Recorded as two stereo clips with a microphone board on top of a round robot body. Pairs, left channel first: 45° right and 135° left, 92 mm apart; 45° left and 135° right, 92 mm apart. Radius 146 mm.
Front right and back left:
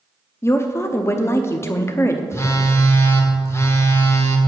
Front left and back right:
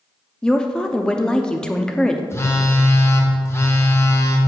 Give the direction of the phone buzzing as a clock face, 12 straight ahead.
12 o'clock.